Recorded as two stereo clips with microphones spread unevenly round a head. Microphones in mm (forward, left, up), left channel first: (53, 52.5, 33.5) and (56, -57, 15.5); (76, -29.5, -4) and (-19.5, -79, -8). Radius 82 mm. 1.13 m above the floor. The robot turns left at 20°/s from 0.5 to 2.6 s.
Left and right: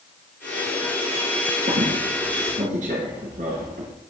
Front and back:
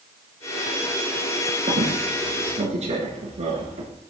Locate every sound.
1.7 s a squeak: 115° right, 3 m; by 3.9 s 135° right, 3 m